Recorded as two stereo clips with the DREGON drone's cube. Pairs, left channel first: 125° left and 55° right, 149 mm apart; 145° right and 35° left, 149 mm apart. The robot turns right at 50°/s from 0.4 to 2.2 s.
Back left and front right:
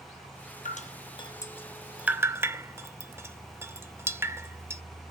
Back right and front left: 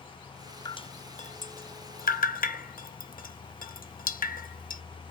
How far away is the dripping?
About 0.5 m.